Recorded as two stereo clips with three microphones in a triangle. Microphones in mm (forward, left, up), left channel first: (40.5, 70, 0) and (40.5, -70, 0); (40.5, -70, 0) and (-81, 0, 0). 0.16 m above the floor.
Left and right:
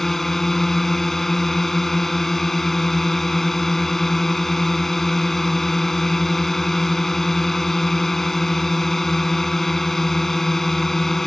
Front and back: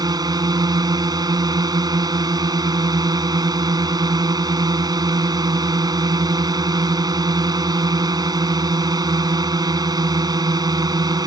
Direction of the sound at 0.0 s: 175° left.